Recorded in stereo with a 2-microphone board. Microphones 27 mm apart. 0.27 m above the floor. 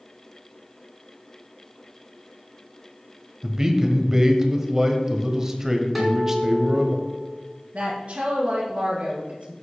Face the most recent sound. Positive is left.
turn(degrees=-45)  # may be behind; listen again after turning